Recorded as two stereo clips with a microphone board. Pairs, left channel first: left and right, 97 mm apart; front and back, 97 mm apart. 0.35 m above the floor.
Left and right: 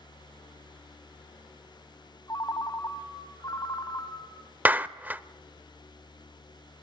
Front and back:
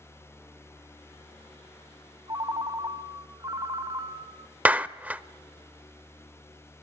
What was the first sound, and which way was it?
A ringtone, 135° left.